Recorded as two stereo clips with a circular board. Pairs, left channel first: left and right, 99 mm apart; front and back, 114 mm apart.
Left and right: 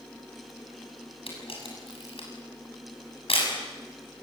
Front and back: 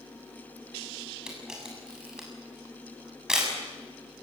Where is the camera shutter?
95° left, 7 m.